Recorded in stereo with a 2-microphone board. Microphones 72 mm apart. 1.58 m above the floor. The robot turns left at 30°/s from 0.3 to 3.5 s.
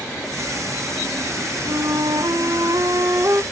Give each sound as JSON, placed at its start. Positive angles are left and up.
{"t": 1.7, "sound": "a flute", "azimuth_deg": -90, "distance_m": 0.5}